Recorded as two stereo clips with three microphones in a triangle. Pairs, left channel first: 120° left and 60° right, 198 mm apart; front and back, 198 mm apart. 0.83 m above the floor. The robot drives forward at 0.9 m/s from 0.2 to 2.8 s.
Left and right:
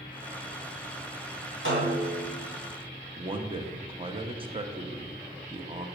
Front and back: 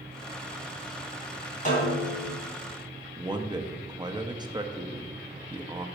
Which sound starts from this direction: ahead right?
A snare drum, at 1.6 s.